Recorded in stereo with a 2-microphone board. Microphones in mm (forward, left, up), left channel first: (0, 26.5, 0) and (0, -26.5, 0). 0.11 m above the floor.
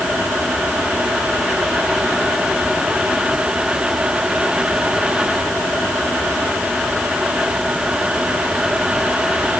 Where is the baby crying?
No baby crying in this recording.